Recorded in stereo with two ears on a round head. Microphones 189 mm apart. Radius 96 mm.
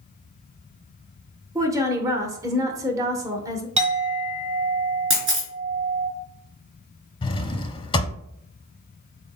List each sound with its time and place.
1.6 s a woman speaking: 15° right (ahead or behind), 0.9 m
3.8 s a clink: 35° right (ahead or behind), 1.4 m
5.1 s a camera shutter: 70° right (ahead or behind), 3 m
7.2 s a drawer: 25° left (ahead or behind), 0.6 m